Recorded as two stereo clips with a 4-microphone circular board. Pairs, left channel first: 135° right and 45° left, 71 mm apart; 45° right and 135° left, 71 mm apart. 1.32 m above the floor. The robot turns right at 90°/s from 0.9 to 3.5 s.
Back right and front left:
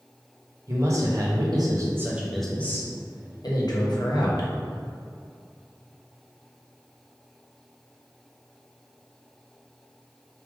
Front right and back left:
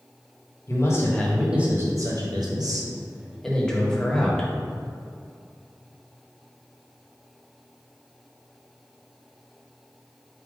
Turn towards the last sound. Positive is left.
turn(degrees=-125)